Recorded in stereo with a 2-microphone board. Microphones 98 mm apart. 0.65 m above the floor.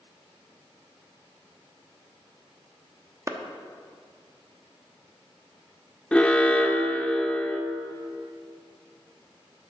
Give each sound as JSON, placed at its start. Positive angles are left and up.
{"t": 3.3, "sound": "a clap", "side_deg": -30, "distance_m": 0.9}
{"t": 6.1, "sound": "an alarm", "side_deg": 10, "distance_m": 0.9}